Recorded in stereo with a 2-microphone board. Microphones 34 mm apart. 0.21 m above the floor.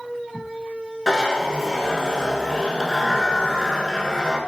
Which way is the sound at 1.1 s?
15° left (ahead or behind).